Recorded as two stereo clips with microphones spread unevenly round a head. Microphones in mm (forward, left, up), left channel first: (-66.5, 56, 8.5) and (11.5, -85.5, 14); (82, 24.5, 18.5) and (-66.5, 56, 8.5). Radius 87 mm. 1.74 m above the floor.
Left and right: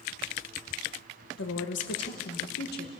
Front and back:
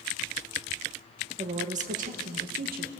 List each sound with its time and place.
1.4 s a woman speaking: 120° left, 1.7 m; by 2.9 s 145° left, 2 m